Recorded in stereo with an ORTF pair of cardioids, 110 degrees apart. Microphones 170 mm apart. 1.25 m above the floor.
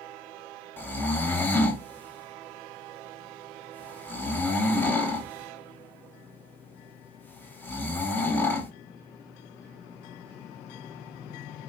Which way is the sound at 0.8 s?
10° left.